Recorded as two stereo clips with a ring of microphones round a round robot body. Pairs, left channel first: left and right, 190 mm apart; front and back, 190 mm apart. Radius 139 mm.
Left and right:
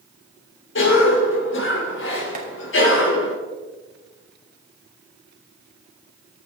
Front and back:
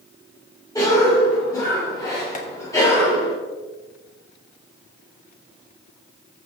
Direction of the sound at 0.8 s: 80° left.